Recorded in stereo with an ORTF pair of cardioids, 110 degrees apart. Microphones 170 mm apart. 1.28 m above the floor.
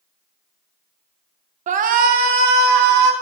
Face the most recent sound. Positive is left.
turn(degrees=-80)